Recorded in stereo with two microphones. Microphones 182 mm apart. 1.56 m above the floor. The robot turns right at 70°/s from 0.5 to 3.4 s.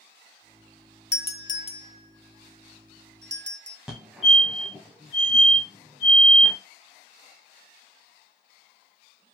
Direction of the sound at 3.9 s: 5° right (ahead or behind).